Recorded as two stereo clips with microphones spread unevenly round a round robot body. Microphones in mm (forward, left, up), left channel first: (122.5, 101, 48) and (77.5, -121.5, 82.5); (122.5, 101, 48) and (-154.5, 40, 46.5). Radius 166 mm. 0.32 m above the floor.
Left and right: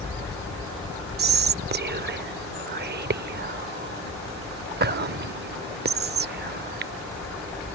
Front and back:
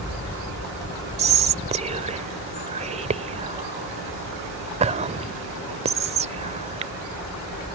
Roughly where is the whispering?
Behind right.